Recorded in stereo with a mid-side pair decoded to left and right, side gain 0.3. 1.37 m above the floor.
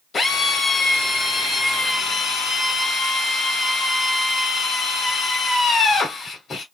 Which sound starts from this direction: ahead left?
A drill, at 0.1 s.